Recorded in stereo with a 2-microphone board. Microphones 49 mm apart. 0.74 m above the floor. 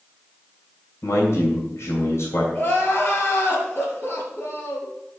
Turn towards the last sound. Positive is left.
turn(degrees=45)  # may be behind; listen again after turning